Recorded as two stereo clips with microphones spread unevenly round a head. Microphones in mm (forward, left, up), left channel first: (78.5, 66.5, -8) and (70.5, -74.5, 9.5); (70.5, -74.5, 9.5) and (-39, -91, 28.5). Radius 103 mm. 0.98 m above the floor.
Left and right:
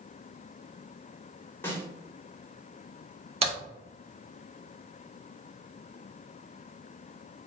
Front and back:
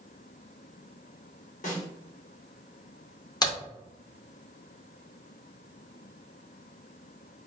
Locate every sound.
1.6 s a snare drum: 10° left, 1.3 m
3.4 s a crack: 45° right, 1.7 m